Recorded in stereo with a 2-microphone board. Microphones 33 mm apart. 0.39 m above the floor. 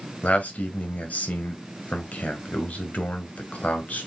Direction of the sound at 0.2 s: 50° left (ahead or behind).